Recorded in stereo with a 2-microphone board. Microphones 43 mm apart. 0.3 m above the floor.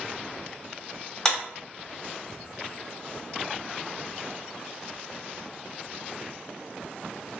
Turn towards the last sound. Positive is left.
turn(degrees=15)  # may be behind; listen again after turning